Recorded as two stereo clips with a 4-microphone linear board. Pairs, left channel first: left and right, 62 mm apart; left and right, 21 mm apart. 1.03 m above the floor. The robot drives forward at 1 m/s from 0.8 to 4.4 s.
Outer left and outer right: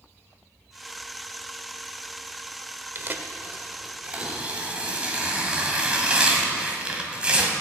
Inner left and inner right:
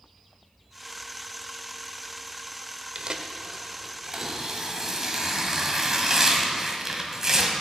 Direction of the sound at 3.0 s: 40° right (ahead or behind).